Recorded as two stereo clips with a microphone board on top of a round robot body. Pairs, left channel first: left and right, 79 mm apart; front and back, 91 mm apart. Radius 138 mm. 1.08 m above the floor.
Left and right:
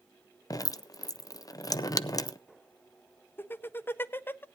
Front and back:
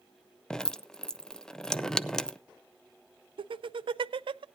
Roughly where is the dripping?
Left.